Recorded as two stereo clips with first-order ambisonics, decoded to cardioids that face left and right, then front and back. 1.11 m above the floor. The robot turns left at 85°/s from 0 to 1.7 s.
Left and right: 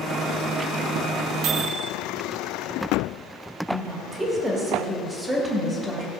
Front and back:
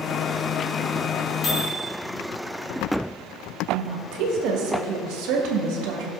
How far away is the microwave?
About 1.7 m.